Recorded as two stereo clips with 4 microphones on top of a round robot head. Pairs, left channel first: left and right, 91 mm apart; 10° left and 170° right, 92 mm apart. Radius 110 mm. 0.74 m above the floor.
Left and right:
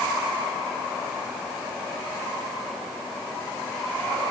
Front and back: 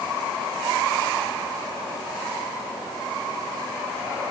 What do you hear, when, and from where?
Only background noise.